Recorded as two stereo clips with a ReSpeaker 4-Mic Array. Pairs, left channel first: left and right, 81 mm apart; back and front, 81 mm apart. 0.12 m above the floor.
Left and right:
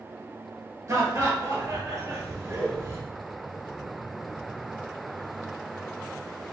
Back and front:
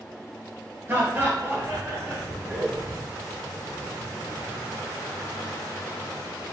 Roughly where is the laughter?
Ahead right.